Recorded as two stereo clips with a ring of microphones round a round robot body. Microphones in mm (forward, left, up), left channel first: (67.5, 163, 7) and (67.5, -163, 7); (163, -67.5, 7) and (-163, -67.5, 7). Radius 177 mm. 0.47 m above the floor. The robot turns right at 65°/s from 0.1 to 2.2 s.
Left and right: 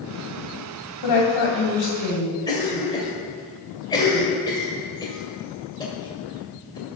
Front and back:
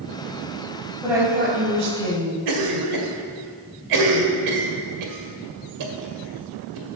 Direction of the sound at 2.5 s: 165° left.